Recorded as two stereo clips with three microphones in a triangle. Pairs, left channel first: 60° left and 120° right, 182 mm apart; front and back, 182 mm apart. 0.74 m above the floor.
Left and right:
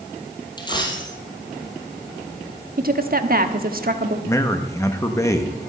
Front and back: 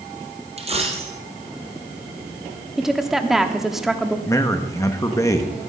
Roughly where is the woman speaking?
Right.